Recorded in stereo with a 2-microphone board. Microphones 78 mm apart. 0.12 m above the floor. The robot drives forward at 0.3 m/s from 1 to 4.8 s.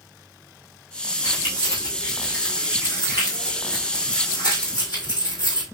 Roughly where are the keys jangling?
Left.